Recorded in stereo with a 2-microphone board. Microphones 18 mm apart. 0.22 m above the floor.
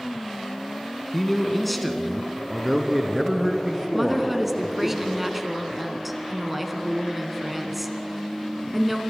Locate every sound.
1.1 s a man speaking: 15° left (ahead or behind), 1.8 m; by 4.9 s 15° right (ahead or behind), 3.5 m
3.9 s a woman speaking: 10° right (ahead or behind), 1.8 m